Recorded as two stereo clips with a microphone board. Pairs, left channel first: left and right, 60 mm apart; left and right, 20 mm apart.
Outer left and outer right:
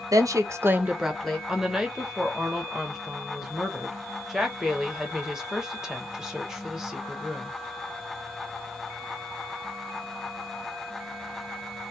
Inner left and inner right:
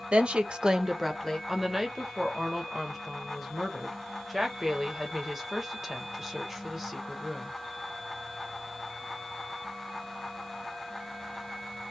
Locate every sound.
0.1 s a woman speaking: 70° right (ahead or behind), 0.7 m; by 1.4 s 10° left (ahead or behind), 0.7 m
1.5 s a woman speaking: 5° right (ahead or behind), 0.8 m